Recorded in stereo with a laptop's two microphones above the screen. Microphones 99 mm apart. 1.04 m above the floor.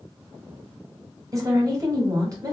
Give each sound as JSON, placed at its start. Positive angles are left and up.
{"t": 1.3, "sound": "a woman speaking", "side_deg": -35, "distance_m": 1.0}